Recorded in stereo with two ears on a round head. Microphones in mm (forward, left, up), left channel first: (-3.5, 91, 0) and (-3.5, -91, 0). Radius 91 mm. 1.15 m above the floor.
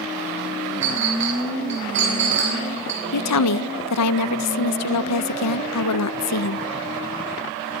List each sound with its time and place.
0.8 s a clink: 55° right (ahead or behind), 7.5 m
3.1 s a woman speaking: 85° left, 0.6 m